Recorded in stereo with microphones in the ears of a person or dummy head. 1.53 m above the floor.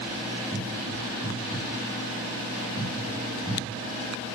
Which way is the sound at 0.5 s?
35° right (ahead or behind).